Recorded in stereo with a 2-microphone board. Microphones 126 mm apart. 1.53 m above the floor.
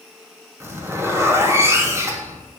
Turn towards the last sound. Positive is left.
turn(degrees=-20)  # may be behind; listen again after turning